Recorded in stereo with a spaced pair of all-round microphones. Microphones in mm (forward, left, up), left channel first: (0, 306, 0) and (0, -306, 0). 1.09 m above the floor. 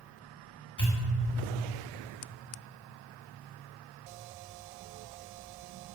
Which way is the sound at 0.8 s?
30° left (ahead or behind).